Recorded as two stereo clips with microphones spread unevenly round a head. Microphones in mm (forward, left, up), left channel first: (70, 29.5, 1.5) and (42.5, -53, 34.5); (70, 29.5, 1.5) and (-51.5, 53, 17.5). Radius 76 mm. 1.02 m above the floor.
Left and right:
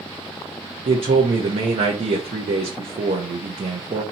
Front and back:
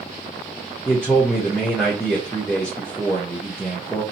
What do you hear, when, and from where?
0.8 s a man speaking: 90° right, 0.7 m